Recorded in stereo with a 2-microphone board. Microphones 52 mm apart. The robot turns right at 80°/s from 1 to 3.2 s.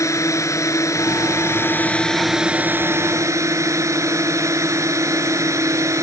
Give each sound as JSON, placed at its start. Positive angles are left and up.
{"t": 0.0, "sound": "a drone", "azimuth_deg": 80}